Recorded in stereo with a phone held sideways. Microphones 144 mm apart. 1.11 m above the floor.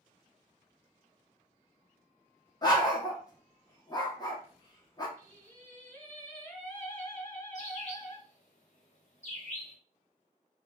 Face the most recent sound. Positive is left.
turn(degrees=55)  # may be behind; listen again after turning